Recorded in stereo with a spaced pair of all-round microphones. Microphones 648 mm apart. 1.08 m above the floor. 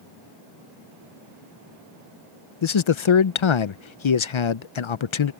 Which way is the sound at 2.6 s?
50° left (ahead or behind).